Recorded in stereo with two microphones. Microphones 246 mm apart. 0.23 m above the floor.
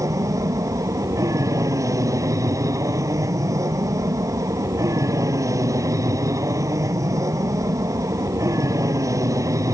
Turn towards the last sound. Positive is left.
turn(degrees=-15)  # may be behind; listen again after turning